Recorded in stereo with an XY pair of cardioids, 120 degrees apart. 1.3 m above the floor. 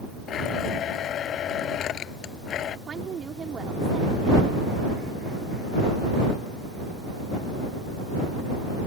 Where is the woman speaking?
40° right.